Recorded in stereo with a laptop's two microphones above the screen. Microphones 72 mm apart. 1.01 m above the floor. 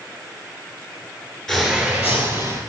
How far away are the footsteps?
About 1.0 m.